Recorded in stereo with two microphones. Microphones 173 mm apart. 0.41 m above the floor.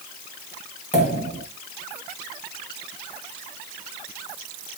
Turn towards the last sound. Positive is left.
turn(degrees=45)  # may be behind; listen again after turning